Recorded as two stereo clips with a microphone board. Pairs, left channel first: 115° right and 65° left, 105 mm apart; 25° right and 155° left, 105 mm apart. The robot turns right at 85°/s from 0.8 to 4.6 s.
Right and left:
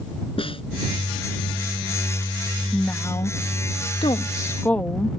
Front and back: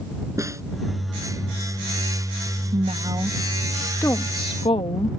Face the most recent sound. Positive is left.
turn(degrees=-40)